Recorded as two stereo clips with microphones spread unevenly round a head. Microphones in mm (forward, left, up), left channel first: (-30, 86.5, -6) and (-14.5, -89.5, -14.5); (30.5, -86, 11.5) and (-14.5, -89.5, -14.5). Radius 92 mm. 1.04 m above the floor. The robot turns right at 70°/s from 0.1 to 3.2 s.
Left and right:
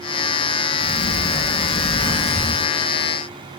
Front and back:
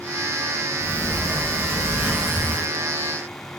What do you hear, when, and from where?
0.8 s a sliding door: 110° left, 1.6 m; by 2.7 s 120° right, 1.6 m